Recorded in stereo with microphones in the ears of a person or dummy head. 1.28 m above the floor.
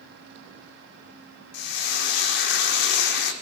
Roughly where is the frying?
Left.